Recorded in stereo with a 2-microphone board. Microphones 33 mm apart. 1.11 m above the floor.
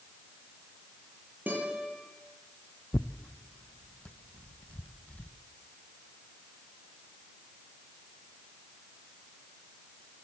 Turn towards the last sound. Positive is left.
turn(degrees=35)  # may be behind; listen again after turning